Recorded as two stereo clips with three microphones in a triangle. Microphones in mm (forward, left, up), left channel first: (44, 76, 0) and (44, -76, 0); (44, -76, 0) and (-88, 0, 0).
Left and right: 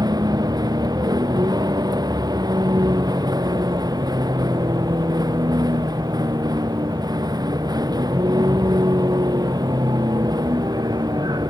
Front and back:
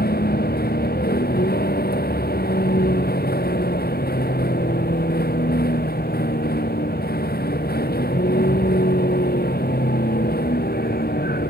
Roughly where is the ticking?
No ticking in this recording.